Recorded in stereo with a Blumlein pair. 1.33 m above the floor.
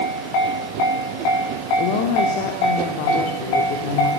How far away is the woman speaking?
About 3.5 m.